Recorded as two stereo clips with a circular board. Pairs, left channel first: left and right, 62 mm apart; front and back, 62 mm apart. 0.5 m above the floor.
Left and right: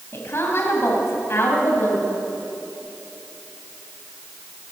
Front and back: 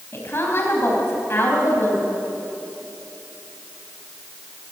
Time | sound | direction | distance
0.1 | a woman speaking | 45° left | 3.5 m